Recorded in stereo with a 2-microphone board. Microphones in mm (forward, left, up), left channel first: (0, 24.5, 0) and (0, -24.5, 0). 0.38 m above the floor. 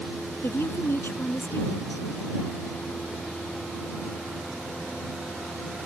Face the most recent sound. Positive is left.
turn(degrees=60)  # may be behind; listen again after turning